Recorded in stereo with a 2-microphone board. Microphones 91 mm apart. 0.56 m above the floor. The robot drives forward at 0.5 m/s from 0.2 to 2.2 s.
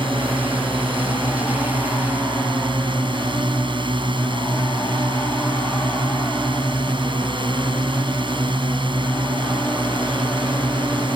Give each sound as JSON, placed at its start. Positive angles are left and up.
{"t": 0.0, "sound": "a drone", "side_deg": -70}